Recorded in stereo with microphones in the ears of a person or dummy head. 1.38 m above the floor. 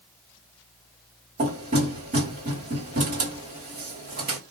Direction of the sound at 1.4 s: 45° right (ahead or behind).